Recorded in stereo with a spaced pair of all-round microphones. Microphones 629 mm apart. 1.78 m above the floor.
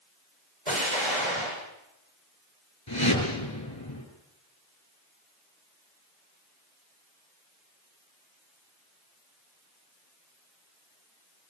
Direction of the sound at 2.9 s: 40° left (ahead or behind).